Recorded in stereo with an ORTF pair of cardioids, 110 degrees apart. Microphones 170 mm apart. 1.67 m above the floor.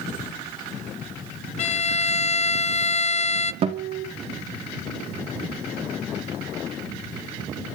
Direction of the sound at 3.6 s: 35° right.